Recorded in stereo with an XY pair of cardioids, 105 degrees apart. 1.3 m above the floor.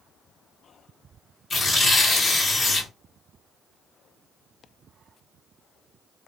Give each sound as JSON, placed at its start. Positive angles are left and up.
{"t": 1.5, "sound": "tearing paper", "azimuth_deg": 35, "distance_m": 2.0}